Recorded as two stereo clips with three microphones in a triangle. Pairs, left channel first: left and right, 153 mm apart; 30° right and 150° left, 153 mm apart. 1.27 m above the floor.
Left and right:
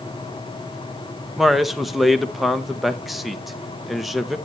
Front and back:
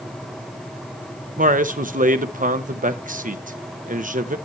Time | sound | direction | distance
1.4 | a man speaking | straight behind | 1.0 m